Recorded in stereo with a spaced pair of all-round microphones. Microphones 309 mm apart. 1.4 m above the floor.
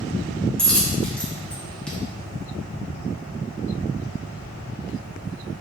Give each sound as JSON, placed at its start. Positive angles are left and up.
{"t": 0.6, "sound": "a dropped coin", "side_deg": 5, "distance_m": 0.6}